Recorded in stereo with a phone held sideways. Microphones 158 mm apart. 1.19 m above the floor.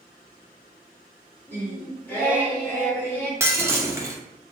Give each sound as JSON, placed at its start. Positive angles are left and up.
{"t": 1.5, "sound": "singing", "side_deg": 15, "distance_m": 1.0}
{"t": 3.4, "sound": "breaking glass", "side_deg": -15, "distance_m": 0.6}